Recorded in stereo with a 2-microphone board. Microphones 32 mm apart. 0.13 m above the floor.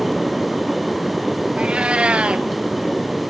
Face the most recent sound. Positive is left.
turn(degrees=-40)  # may be behind; listen again after turning